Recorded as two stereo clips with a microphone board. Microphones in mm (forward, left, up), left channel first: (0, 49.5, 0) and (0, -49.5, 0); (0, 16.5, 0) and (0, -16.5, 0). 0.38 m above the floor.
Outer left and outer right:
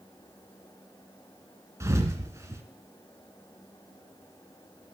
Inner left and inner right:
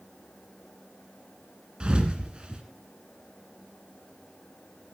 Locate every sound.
1.8 s a thud: 30° right (ahead or behind), 1.8 m